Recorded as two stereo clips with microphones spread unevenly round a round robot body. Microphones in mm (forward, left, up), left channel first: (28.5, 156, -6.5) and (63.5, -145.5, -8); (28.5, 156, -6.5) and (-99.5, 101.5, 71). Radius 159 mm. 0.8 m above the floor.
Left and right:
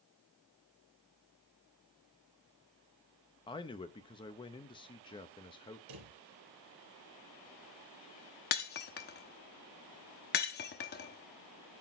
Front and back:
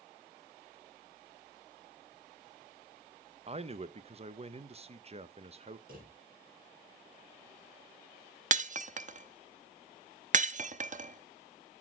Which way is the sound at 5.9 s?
110° right.